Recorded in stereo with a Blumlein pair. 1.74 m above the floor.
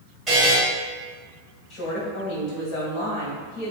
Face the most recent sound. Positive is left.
turn(degrees=35)